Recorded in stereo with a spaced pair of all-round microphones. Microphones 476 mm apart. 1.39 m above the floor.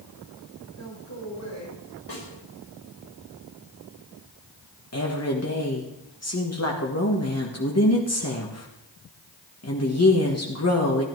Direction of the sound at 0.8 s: 35° left (ahead or behind).